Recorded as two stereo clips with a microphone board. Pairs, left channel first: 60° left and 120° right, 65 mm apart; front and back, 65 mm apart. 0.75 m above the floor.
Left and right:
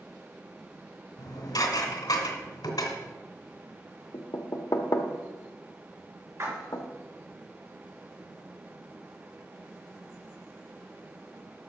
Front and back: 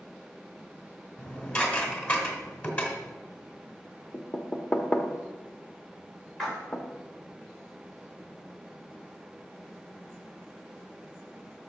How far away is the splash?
About 3.5 m.